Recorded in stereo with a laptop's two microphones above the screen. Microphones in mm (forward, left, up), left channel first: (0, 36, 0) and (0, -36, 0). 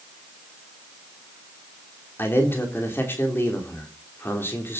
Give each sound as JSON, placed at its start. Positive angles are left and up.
{"t": 2.2, "sound": "a man speaking", "side_deg": 35, "distance_m": 3.0}